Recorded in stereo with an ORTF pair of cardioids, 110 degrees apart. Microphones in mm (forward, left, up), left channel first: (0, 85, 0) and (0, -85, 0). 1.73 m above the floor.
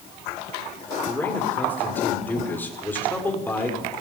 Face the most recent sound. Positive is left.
turn(degrees=10)